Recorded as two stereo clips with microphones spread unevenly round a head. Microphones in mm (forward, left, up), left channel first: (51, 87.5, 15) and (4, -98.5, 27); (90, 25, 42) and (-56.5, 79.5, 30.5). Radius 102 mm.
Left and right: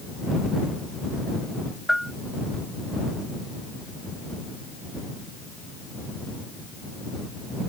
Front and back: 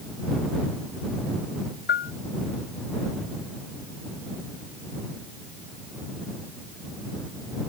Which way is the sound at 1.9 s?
15° right.